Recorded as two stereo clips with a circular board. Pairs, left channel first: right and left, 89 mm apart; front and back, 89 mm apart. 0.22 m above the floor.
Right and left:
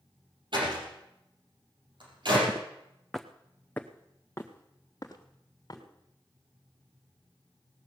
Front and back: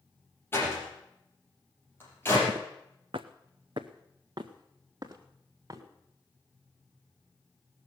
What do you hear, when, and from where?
0.5 s a door slam: 65° left, 5 m
2.5 s footsteps: 145° left, 0.8 m; by 5.8 s 130° right, 2.5 m